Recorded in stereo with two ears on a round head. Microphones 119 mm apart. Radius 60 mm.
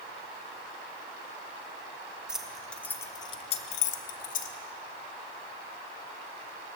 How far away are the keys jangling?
About 0.8 m.